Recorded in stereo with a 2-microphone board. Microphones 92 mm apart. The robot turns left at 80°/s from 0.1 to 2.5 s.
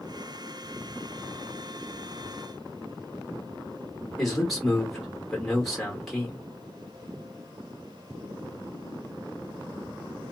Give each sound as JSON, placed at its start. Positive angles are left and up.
{"t": 4.2, "sound": "a man speaking", "side_deg": 0, "distance_m": 1.8}